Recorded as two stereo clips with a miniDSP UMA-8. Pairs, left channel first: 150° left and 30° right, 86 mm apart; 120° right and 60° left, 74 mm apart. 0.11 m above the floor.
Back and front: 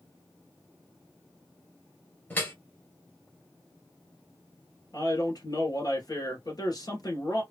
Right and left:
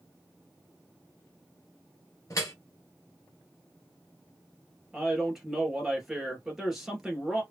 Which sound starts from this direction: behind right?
Dripping, at 2.3 s.